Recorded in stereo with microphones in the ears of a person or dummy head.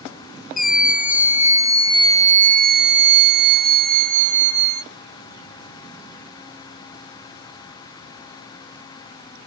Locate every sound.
0.6 s a scream: centre (ahead or behind); by 4.8 s 45° right (ahead or behind)